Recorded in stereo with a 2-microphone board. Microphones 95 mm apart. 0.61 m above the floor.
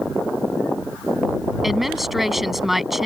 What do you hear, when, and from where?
1.6 s a woman speaking: centre (ahead or behind)